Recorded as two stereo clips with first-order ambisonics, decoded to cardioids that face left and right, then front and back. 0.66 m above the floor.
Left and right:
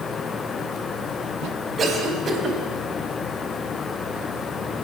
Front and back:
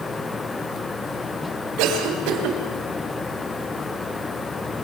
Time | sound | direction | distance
1.8 | a cough | 160° right | 4.5 m